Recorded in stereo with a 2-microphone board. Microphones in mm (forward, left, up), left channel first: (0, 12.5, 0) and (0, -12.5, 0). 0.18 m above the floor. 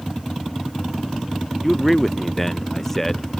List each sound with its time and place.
1.6 s a man speaking: 5° left (ahead or behind); by 3.4 s 10° left (ahead or behind)